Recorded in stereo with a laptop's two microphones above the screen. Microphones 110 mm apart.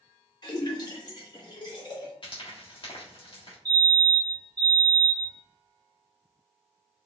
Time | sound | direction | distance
0.4 | a splash | 40° left (ahead or behind) | 1.2 m
2.2 | frying | 50° left (ahead or behind) | 1.6 m
3.6 | a fire alarm | 35° right (ahead or behind) | 1.5 m